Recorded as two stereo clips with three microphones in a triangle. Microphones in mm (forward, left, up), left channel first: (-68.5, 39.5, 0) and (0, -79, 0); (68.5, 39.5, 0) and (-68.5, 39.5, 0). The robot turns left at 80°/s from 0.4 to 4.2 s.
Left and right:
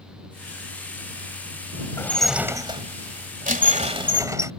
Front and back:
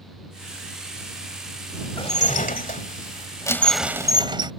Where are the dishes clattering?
55° left; by 4.5 s 125° right.